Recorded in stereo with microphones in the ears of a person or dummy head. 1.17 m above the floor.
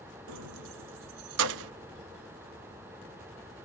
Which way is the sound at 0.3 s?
65° right (ahead or behind).